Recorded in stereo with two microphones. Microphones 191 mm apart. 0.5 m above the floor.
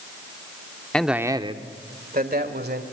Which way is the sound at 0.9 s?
5° left (ahead or behind).